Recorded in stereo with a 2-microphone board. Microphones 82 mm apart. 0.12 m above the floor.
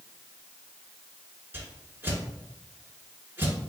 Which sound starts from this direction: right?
A whoosh, at 1.5 s.